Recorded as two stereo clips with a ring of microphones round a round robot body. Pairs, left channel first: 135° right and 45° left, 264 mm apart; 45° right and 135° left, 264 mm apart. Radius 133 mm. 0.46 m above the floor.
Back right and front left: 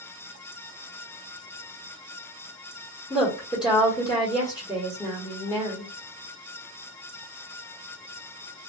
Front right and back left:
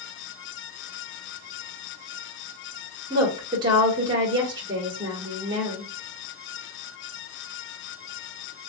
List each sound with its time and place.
3.1 s a woman speaking: straight behind, 1.2 m